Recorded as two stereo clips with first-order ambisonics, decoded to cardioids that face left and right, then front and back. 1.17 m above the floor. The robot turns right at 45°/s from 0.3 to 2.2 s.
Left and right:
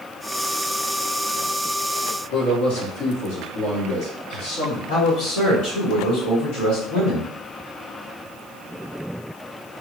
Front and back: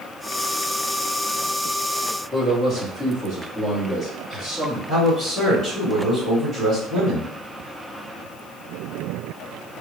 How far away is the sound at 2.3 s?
About 1.3 m.